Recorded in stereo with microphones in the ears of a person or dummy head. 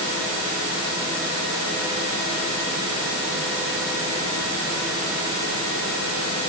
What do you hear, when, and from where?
Only background noise.